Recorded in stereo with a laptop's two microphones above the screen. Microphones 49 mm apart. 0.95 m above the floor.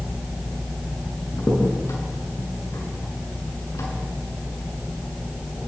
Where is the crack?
80° left, 6 m.